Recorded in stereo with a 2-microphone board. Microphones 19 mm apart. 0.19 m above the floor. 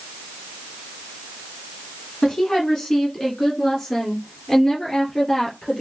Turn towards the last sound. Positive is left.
turn(degrees=40)  # may be behind; listen again after turning